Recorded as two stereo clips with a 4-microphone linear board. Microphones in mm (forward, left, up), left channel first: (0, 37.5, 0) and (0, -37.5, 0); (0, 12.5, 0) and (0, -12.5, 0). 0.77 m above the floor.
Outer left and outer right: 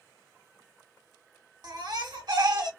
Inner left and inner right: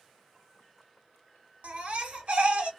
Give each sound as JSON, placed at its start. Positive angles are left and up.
{"t": 1.6, "sound": "a baby crying", "side_deg": -75, "distance_m": 1.0}